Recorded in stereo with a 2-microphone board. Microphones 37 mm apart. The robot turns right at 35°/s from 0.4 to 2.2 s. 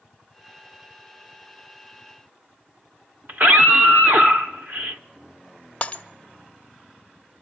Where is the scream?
50° right (ahead or behind), 1.1 m.